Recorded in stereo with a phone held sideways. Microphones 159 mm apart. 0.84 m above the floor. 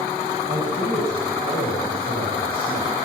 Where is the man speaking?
75° right (ahead or behind), 6.5 m.